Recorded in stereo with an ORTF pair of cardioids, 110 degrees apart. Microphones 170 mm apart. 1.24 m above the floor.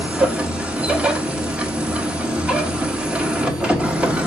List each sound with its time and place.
0.0 s a machine running: 5° right, 1.0 m